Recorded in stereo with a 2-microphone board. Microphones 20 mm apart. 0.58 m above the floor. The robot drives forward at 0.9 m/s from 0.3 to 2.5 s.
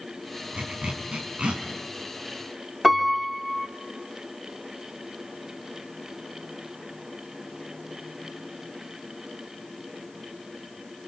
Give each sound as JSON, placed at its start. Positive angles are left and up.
{"t": 0.5, "sound": "a zipper", "side_deg": -70, "distance_m": 5.0}
{"t": 2.8, "sound": "a piano", "side_deg": -5, "distance_m": 1.8}